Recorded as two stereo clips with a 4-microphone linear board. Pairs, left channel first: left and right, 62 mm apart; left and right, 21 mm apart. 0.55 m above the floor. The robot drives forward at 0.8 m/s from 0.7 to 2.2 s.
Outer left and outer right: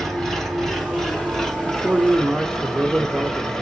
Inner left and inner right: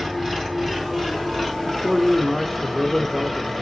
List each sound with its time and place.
0.0 s an engine running: 5° left (ahead or behind), 3 m; by 3.6 s 10° left (ahead or behind), 1.6 m
1.7 s a man speaking: 20° right (ahead or behind), 0.8 m; by 3.5 s 15° right (ahead or behind), 1.0 m